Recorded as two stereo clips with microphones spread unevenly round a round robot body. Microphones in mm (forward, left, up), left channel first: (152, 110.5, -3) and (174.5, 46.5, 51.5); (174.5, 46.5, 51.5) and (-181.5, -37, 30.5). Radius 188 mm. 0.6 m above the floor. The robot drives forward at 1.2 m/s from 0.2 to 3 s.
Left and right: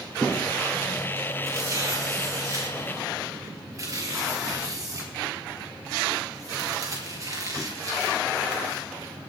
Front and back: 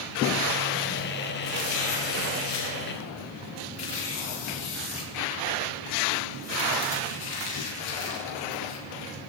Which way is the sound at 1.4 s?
30° right.